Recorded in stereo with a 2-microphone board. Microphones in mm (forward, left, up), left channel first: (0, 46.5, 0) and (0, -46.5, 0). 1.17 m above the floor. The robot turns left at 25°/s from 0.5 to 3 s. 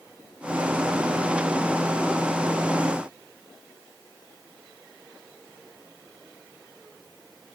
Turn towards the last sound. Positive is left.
No sound to turn to.